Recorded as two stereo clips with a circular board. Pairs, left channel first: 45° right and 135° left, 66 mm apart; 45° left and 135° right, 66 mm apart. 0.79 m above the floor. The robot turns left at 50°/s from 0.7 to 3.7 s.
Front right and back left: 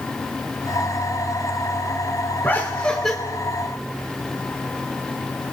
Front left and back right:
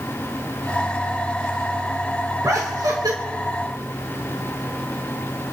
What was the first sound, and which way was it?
Laughter, 100° right.